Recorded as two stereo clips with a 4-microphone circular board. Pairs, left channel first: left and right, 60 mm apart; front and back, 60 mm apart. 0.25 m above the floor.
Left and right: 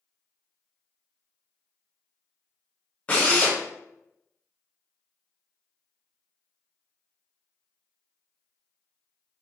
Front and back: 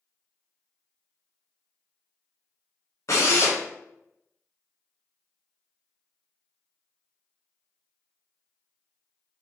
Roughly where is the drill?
Ahead left.